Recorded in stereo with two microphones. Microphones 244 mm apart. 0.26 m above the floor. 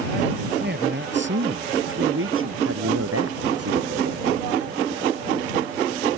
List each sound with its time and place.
0.6 s a man speaking: 45° right (ahead or behind); by 2.5 s 60° right (ahead or behind)
2.6 s a man speaking: 75° right (ahead or behind)